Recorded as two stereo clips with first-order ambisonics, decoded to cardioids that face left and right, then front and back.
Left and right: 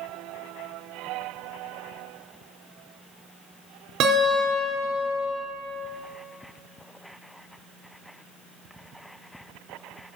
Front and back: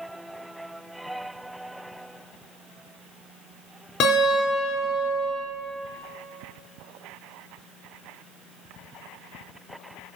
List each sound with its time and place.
4.0 s a guitar: 50° right, 3.5 m